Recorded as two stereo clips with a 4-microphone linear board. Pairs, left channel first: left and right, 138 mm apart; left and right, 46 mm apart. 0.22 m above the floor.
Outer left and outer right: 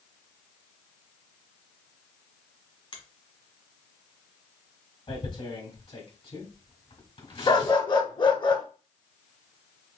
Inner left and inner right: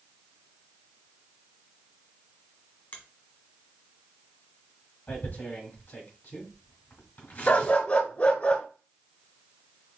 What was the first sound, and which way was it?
A finger snap, 40° left (ahead or behind).